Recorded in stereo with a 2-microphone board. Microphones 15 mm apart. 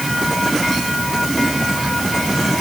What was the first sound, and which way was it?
Only background noise.